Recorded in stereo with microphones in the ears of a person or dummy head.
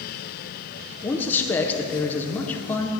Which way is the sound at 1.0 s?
10° left (ahead or behind).